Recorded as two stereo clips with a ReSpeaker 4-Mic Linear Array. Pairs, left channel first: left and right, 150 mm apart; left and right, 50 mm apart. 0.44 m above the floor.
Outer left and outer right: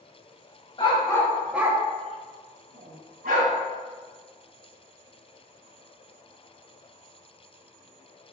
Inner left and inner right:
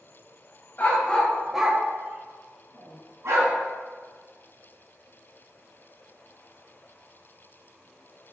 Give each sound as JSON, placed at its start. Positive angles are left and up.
{"t": 0.8, "sound": "a dog barking", "side_deg": 35, "distance_m": 0.8}